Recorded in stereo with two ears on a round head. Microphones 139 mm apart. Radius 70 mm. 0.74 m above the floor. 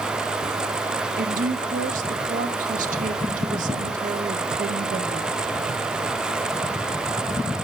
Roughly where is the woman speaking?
Right.